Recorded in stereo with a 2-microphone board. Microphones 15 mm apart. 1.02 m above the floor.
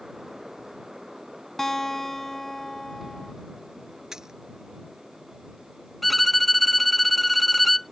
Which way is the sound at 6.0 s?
5° left (ahead or behind).